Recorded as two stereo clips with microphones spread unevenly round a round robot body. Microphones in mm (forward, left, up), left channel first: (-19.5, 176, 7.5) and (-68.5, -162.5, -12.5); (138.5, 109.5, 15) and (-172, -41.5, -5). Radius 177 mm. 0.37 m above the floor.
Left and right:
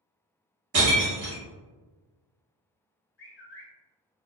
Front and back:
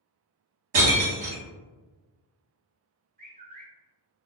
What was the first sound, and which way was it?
Breaking glass, 145° right.